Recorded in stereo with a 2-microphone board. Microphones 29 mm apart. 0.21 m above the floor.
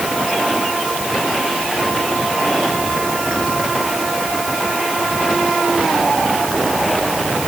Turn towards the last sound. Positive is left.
No sound to turn to.